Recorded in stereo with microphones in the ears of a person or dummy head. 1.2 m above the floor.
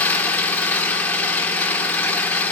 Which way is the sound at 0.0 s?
10° left (ahead or behind).